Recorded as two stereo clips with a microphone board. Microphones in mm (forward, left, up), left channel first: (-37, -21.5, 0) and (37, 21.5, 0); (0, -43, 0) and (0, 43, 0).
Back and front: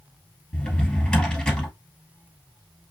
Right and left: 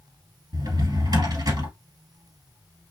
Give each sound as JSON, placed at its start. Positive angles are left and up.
{"t": 0.5, "sound": "a drawer", "azimuth_deg": 130, "distance_m": 1.8}